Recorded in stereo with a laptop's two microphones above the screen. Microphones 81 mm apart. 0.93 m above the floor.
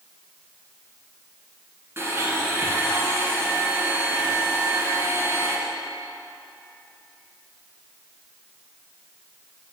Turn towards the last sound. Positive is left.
turn(degrees=-35)  # may be behind; listen again after turning